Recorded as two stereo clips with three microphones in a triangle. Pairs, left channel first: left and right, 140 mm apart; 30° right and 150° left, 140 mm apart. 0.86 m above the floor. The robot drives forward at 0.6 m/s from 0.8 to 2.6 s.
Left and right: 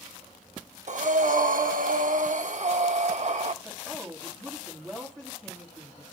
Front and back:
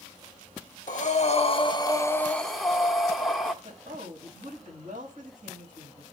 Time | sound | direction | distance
0.9 | breathing | 55° right | 1.0 m
3.6 | a woman speaking | 175° left | 5 m